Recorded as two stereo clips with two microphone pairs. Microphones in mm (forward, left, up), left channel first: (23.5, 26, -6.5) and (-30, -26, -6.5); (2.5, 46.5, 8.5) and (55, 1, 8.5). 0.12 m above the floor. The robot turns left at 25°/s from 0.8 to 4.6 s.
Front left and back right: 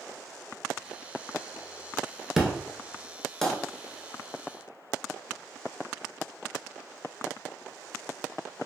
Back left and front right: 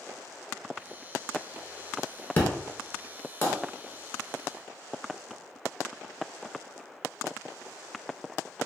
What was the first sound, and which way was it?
An explosion, 150° left.